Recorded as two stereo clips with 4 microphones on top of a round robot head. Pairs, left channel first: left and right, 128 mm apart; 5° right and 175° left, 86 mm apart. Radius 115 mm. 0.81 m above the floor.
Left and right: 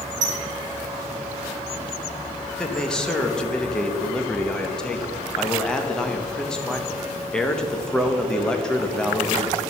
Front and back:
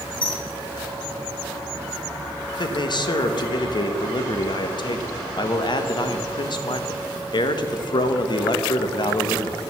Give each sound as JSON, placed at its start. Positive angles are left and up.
{"t": 0.2, "sound": "a squeak", "azimuth_deg": -55, "distance_m": 1.4}
{"t": 2.5, "sound": "a man speaking", "azimuth_deg": 10, "distance_m": 0.9}